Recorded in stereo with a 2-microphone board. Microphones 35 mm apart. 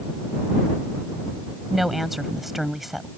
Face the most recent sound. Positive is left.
turn(degrees=-5)  # may be behind; listen again after turning